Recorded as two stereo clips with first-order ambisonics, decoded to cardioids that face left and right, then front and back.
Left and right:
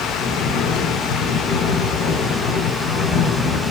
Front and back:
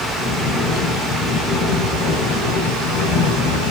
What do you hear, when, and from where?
0.2 s snoring: 45° left, 5.5 m